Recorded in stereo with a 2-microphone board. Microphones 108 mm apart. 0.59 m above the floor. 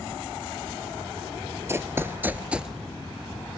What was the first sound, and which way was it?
Running footsteps, 25° right (ahead or behind).